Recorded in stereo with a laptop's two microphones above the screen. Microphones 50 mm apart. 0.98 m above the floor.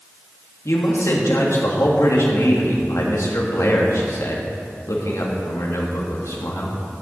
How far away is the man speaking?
About 1.6 m.